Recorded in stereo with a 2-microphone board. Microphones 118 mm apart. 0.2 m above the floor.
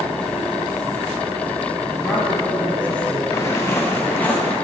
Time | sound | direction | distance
2.0 | a man speaking | 10° left (ahead or behind) | 1.2 m
3.3 | footsteps | 30° left (ahead or behind) | 1.5 m